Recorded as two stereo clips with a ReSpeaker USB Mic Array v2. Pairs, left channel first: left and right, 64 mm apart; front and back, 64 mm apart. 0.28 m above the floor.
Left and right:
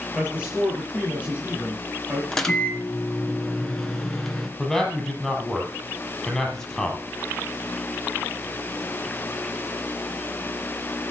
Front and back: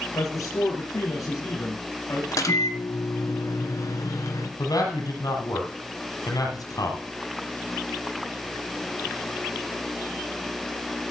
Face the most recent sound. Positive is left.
turn(degrees=5)